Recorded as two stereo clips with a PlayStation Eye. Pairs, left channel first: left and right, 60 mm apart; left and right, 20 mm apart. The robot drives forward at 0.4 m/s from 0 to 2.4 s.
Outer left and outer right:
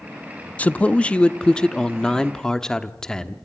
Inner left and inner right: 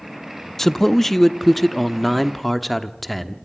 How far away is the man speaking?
About 0.6 m.